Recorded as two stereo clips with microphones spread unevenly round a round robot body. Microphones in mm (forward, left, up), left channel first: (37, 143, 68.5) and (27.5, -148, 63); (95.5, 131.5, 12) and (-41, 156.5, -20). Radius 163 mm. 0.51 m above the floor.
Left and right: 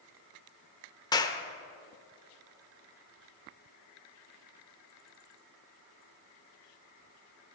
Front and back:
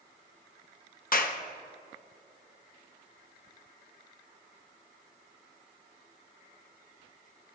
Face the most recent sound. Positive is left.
turn(degrees=10)